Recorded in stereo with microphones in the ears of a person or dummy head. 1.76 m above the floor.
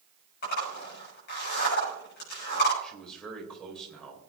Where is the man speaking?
5° left (ahead or behind), 3.5 m.